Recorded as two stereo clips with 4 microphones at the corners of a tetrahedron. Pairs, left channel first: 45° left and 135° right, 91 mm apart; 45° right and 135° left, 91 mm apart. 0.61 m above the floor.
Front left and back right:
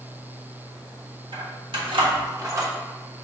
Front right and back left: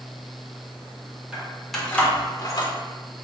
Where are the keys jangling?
150° right, 1.5 m; by 2.7 s 75° right, 1.3 m.